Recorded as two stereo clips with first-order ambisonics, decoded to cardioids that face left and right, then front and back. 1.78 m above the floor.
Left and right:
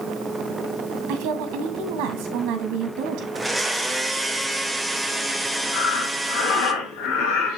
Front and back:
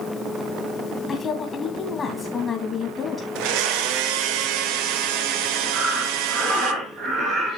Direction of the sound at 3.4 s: 175° right.